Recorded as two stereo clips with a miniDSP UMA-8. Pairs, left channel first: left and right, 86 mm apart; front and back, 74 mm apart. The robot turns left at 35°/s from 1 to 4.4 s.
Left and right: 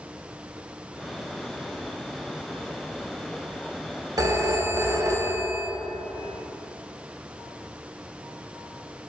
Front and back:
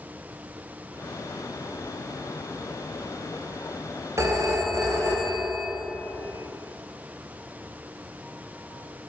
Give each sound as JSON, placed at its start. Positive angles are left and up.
{"t": 4.2, "sound": "a phone ringing", "azimuth_deg": -135, "distance_m": 0.5}